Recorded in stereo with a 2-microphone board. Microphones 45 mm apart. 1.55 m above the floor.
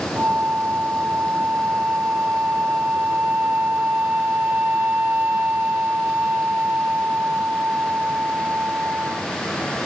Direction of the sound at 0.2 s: 50° right (ahead or behind).